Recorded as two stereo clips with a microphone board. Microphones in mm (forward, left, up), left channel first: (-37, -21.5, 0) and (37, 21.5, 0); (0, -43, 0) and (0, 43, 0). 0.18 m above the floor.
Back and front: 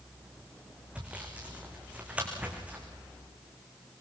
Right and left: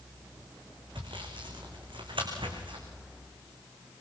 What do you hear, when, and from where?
0.9 s sawing: 105° left, 4 m